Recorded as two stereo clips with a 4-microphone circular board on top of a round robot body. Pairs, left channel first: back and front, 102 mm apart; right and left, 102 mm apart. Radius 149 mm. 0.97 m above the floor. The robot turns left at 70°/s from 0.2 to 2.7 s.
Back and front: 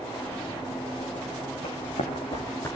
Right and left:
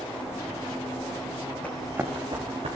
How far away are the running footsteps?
About 5 m.